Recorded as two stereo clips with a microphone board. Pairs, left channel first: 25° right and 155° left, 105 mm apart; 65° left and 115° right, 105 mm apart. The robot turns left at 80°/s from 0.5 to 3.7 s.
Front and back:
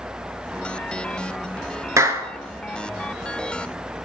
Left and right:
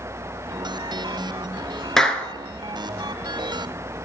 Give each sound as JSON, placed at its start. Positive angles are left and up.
{"t": 2.0, "sound": "a clap", "azimuth_deg": 150, "distance_m": 1.2}